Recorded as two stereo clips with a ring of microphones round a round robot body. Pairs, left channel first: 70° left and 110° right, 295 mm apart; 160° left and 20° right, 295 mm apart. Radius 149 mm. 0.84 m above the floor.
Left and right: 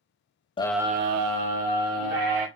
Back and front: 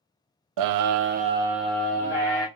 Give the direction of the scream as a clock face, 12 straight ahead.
12 o'clock.